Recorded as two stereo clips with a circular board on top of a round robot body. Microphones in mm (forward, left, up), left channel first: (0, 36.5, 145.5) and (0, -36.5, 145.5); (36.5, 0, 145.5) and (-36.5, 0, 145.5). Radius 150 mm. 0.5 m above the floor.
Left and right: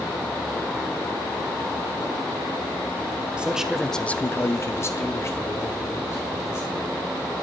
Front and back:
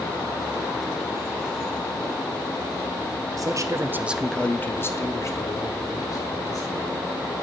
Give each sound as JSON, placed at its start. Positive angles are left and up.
{"t": 3.4, "sound": "a man speaking", "azimuth_deg": -165, "distance_m": 1.1}